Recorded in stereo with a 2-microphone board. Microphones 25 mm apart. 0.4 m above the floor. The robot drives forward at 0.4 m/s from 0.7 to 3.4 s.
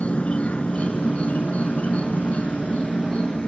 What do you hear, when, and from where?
0.0 s an insect: 60° left (ahead or behind), 0.8 m; by 3.5 s 45° left (ahead or behind), 1.0 m